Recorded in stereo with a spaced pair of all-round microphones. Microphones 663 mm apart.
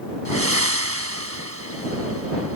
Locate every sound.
0.2 s breathing: 20° right (ahead or behind)